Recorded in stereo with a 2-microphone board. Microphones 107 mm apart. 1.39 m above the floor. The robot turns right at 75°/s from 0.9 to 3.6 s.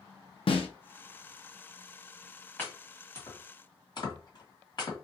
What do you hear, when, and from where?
0.5 s a snare drum: 60° left (ahead or behind), 0.7 m
2.6 s chopping: 15° left (ahead or behind), 1.6 m; by 5.0 s 45° left (ahead or behind), 1.6 m